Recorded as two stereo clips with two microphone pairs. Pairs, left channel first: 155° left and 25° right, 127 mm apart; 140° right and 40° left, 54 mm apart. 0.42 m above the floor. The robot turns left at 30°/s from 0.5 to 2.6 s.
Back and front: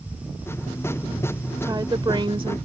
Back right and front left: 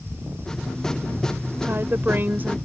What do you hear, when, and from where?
1.6 s a woman speaking: 25° left; by 2.6 s 5° right